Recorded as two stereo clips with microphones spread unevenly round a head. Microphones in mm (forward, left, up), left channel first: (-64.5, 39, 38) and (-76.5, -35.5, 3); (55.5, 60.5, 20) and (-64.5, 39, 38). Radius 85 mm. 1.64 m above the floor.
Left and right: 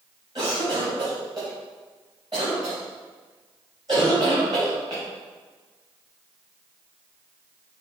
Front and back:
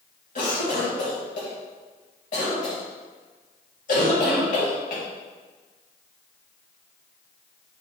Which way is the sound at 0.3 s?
30° right.